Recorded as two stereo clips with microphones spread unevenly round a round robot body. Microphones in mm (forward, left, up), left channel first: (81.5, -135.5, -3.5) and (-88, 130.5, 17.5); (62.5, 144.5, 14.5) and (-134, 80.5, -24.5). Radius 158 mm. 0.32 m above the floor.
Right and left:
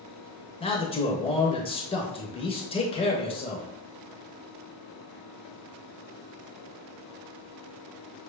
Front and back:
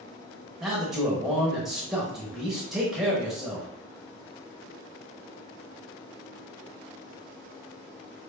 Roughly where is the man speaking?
Right.